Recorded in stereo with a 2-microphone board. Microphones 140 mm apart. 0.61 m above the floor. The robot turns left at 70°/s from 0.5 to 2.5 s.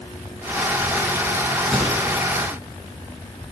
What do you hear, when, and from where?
1.7 s a microwave: centre (ahead or behind), 5.5 m; by 1.9 s 15° left (ahead or behind), 5.5 m